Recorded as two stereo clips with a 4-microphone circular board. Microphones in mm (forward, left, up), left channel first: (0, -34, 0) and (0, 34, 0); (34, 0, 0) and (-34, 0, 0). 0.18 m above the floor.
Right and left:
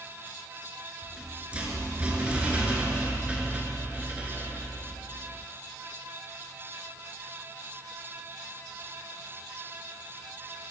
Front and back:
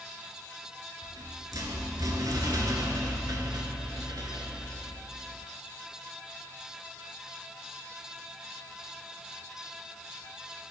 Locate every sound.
1.0 s a rattle: 160° left, 0.7 m